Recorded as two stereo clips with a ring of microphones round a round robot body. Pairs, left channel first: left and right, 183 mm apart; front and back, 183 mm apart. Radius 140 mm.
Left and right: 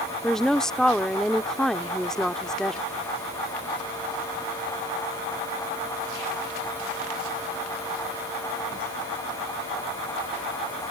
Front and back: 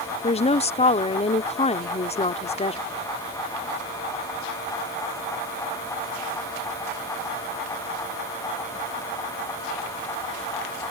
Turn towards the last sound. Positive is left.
turn(degrees=5)